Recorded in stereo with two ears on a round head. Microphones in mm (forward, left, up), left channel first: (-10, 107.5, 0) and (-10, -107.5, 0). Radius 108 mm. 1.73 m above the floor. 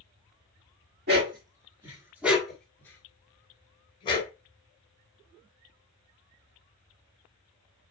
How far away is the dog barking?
About 1.5 m.